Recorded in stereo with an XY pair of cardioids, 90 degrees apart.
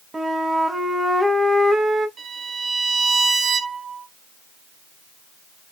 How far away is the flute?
About 1.0 m.